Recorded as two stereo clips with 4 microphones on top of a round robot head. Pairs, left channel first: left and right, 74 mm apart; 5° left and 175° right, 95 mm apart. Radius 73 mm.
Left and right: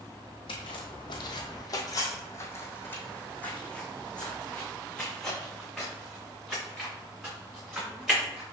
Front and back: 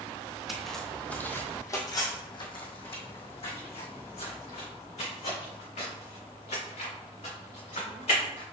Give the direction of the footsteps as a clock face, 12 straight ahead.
9 o'clock.